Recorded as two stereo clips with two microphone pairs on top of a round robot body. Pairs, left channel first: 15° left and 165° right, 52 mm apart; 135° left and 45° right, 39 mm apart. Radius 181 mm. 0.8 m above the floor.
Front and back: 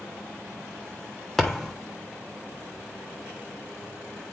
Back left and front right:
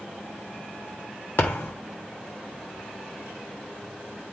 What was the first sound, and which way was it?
A thud, 100° left.